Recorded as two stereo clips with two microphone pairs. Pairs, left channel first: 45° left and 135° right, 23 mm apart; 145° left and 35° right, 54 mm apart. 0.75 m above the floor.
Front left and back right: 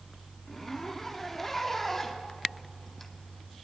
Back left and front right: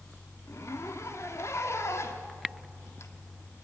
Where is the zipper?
125° left, 1.8 m.